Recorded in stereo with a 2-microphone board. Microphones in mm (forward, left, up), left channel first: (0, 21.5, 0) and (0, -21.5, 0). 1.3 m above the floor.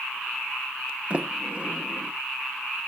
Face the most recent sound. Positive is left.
turn(degrees=-30)  # may be behind; listen again after turning